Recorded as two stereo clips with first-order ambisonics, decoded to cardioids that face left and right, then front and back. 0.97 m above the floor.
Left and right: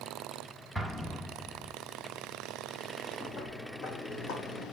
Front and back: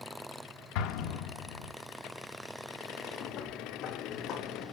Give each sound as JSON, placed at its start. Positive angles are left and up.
{"t": 0.8, "sound": "an explosion", "azimuth_deg": 0, "distance_m": 1.1}
{"t": 3.2, "sound": "footsteps", "azimuth_deg": 35, "distance_m": 1.8}